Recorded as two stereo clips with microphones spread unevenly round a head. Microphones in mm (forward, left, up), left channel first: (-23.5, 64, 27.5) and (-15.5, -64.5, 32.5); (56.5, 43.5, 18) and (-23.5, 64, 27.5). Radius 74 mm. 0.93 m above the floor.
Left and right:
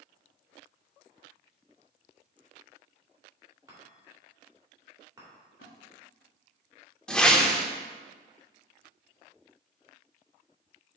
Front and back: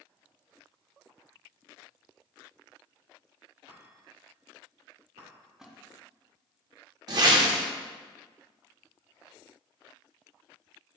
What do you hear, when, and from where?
3.7 s a chime: 155° right, 2.5 m
5.6 s a splash: 85° left, 1.6 m
7.1 s a whoosh: straight behind, 0.7 m